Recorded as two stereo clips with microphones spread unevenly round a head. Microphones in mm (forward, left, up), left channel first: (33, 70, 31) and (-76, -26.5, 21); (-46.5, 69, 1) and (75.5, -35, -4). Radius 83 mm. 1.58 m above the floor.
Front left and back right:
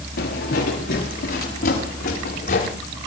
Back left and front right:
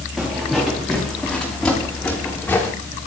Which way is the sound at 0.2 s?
45° left.